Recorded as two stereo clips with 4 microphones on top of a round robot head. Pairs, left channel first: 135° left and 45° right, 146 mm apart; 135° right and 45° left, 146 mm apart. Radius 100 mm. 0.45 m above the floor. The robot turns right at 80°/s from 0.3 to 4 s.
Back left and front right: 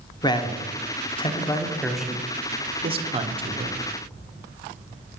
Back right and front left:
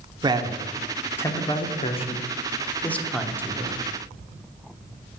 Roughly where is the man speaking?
Left.